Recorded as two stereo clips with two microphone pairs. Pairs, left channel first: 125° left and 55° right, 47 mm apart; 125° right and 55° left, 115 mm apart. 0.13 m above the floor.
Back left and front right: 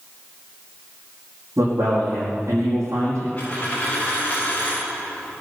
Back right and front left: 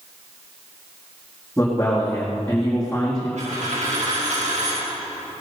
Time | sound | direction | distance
1.6 | a man speaking | 45° right | 5 m
3.4 | a dropped coin | 65° left | 7 m